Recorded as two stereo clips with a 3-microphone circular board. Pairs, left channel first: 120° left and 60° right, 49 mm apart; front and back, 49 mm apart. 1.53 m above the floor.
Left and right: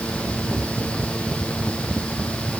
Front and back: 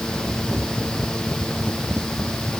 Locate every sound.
Only background noise.